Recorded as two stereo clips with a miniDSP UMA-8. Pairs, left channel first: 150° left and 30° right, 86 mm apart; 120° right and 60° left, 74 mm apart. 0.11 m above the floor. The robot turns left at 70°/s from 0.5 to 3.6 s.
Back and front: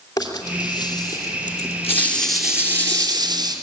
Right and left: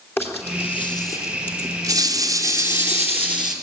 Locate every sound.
0.2 s a rattle: 175° right, 2.5 m; by 3.5 s 25° right, 2.5 m